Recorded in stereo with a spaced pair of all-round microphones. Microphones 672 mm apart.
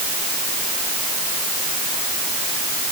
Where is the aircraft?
I don't hear an aircraft.